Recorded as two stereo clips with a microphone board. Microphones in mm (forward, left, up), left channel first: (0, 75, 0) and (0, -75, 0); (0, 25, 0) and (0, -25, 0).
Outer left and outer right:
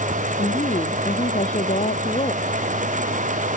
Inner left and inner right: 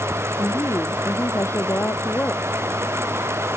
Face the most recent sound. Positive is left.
turn(degrees=50)  # may be behind; listen again after turning